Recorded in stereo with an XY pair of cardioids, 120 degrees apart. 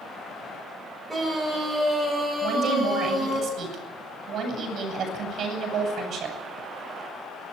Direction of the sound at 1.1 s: 15° right.